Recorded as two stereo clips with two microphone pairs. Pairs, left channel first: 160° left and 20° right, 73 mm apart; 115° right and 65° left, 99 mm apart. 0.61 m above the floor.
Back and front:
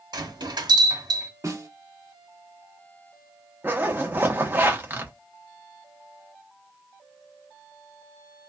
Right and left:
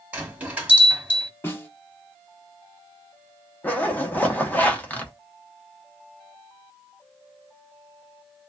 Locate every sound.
0.1 s a bell: 10° right, 1.5 m
1.4 s a snare drum: 55° right, 1.4 m
3.6 s a zipper: 55° right, 1.2 m